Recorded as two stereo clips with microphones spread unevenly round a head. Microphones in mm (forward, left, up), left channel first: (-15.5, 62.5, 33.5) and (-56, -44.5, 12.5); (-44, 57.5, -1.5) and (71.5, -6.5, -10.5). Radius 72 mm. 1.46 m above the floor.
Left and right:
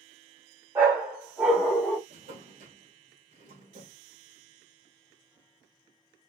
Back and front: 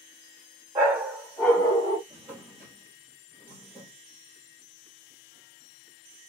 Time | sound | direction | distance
0.8 | a dog barking | 45° right | 1.1 m
2.1 | a drawer | 115° right | 1.7 m